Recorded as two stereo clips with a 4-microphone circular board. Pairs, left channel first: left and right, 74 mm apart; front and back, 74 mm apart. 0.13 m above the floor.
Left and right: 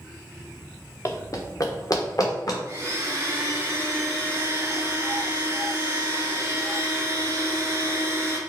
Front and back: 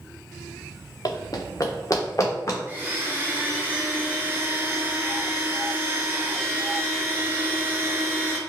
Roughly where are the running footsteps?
Ahead left.